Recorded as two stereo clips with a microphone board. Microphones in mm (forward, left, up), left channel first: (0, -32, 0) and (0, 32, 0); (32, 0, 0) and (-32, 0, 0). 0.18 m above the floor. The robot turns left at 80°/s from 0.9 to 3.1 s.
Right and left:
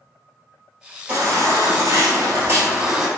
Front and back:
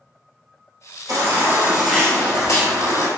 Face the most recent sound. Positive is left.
turn(degrees=-10)